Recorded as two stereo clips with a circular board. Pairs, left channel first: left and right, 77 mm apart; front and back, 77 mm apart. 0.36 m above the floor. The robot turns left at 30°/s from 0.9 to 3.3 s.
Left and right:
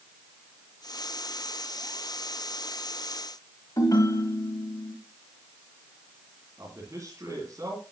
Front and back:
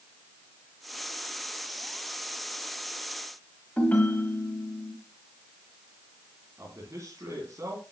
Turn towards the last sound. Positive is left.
turn(degrees=-135)